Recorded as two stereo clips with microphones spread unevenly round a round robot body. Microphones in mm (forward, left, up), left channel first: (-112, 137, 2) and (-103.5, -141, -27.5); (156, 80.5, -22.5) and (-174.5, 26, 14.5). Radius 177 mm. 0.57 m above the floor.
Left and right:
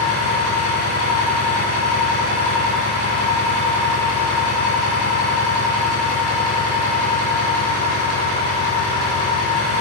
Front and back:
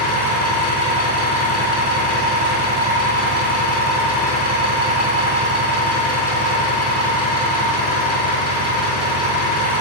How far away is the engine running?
About 3.5 m.